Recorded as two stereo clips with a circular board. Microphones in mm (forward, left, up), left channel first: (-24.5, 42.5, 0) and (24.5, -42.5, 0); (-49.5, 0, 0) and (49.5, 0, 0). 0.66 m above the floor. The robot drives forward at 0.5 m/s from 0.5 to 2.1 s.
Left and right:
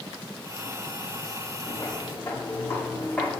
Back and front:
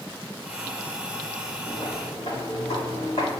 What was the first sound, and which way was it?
Footsteps, 165° left.